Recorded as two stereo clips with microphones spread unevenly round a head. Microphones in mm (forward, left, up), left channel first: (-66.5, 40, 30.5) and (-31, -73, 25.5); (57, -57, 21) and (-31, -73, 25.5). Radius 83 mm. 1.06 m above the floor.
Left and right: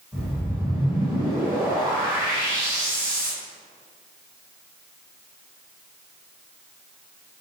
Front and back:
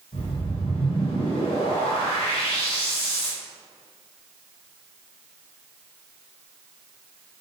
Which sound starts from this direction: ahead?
A whoosh, at 0.1 s.